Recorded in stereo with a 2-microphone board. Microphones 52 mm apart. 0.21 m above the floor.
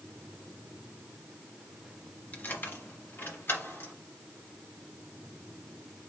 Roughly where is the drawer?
No drawer in this recording.